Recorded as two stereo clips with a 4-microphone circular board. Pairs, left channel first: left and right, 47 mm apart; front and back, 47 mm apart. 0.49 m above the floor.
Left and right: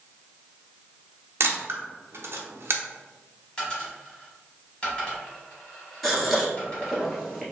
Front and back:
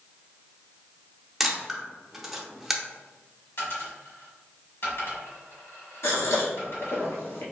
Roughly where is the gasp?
Ahead.